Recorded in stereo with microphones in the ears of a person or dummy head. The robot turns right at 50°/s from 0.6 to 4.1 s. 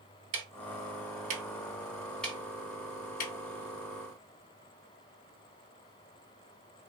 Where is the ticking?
65° right (ahead or behind), 0.8 m; by 3.3 s 50° left (ahead or behind), 0.8 m.